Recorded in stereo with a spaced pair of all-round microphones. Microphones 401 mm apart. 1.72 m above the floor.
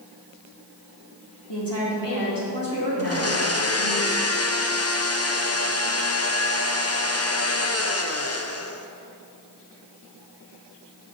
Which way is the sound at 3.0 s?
35° left (ahead or behind).